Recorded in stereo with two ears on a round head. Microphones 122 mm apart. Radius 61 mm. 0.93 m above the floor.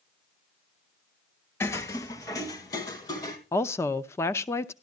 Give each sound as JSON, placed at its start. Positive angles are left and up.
{"t": 1.6, "sound": "footsteps", "side_deg": 20, "distance_m": 0.9}
{"t": 3.5, "sound": "a woman speaking", "side_deg": 20, "distance_m": 0.6}